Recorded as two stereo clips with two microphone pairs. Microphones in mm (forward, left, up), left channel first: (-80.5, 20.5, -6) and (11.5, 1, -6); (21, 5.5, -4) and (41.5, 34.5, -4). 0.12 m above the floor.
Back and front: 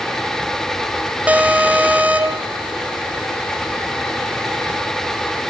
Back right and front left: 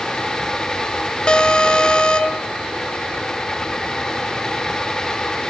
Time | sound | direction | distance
1.3 | an alarm | 80° right | 0.9 m